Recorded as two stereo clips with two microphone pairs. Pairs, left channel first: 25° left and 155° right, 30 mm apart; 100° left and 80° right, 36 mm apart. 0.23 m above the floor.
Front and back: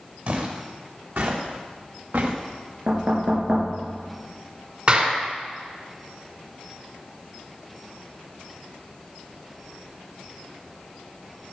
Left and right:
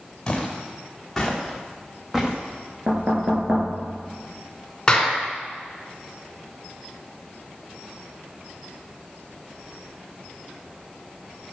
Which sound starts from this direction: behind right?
Knocking, at 2.9 s.